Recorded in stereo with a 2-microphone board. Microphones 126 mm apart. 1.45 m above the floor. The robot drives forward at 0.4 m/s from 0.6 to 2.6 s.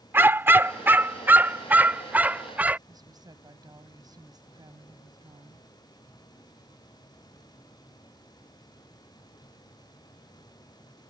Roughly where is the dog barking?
Centre.